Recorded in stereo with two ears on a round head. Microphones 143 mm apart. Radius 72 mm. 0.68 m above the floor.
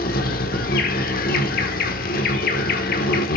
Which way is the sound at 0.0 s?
60° left (ahead or behind).